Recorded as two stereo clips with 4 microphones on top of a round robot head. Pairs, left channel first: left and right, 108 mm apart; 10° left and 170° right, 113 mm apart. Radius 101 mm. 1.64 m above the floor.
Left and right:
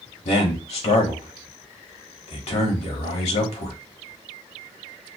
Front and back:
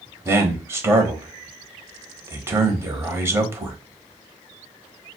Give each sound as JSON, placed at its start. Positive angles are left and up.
{"t": 0.2, "sound": "a man speaking", "azimuth_deg": 120, "distance_m": 1.1}